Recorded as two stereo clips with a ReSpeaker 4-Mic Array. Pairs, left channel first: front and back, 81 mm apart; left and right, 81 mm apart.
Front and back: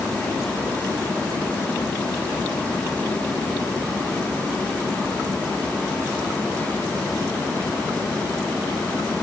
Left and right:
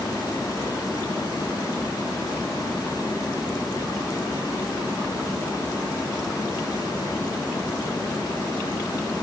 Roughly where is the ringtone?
I don't hear a ringtone.